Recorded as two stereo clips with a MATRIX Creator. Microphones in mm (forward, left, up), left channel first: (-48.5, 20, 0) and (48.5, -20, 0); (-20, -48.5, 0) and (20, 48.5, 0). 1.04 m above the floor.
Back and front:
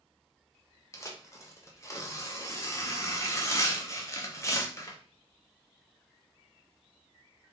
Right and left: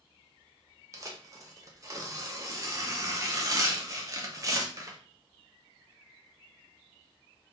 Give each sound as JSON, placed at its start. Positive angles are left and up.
{"t": 0.9, "sound": "tearing paper", "azimuth_deg": 110, "distance_m": 0.5}